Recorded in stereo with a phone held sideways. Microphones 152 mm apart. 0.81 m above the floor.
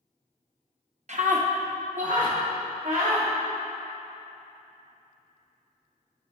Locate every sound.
1.1 s a scream: 55° right (ahead or behind), 0.8 m; by 3.3 s 60° right (ahead or behind), 3 m